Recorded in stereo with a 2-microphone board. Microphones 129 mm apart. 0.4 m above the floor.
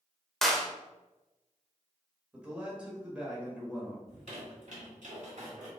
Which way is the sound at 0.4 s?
Centre (ahead or behind).